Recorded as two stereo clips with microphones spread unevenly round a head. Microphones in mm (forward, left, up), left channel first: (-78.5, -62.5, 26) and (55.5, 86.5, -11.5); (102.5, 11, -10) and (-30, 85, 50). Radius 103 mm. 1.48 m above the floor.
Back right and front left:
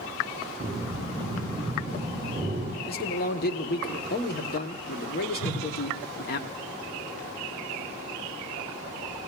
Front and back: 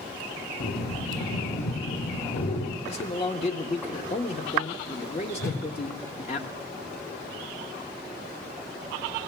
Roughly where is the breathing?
Ahead right.